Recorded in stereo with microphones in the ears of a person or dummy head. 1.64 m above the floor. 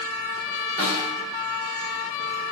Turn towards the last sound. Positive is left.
turn(degrees=-50)  # may be behind; listen again after turning